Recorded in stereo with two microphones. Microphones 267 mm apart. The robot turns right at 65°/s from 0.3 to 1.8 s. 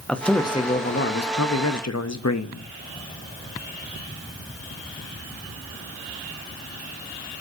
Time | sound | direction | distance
0.1 | a man speaking | 5° left | 0.8 m